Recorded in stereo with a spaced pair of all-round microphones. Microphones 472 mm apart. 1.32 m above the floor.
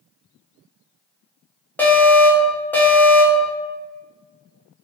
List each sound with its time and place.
1.8 s an alarm: 5° left (ahead or behind), 0.6 m